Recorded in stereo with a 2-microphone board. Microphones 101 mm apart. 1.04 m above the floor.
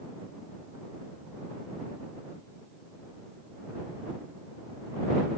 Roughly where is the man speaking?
I don't hear a man speaking.